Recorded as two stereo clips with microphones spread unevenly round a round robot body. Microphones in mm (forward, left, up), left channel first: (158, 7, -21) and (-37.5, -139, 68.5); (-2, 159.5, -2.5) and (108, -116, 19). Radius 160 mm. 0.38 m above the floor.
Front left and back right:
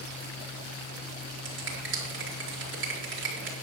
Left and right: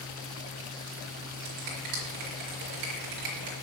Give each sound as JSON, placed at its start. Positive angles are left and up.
{"t": 1.4, "sound": "a finger snap", "azimuth_deg": -100, "distance_m": 4.5}